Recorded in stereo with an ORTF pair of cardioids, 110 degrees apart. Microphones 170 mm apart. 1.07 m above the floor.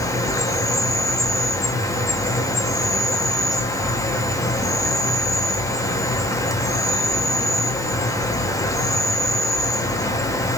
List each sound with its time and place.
0.0 s an insect: 20° left, 0.7 m